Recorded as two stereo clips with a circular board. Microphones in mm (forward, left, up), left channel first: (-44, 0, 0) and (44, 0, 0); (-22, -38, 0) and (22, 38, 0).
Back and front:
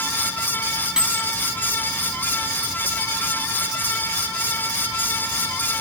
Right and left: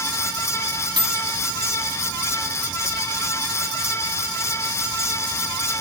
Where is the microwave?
80° left.